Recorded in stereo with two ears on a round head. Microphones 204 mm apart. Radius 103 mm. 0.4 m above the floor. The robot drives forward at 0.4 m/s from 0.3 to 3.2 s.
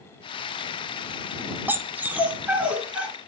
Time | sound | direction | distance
1.7 | a dog barking | 10° right (ahead or behind) | 0.9 m